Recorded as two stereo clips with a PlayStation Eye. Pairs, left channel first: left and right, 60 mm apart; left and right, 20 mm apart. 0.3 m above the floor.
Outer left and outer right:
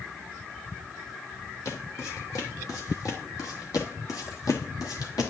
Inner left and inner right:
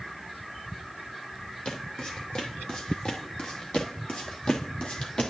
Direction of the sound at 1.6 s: 60° left (ahead or behind).